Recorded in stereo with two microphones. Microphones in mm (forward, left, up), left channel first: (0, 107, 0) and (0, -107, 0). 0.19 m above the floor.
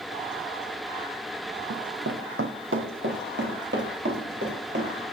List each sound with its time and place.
1.7 s running footsteps: 75° right (ahead or behind), 0.7 m; by 5.0 s 55° right (ahead or behind), 3.5 m